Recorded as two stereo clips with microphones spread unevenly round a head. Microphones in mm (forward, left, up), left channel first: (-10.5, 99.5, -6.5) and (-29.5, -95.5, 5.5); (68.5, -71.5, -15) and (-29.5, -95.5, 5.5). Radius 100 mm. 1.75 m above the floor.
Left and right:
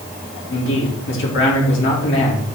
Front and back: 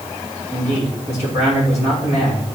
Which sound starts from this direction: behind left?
A man speaking, at 0.5 s.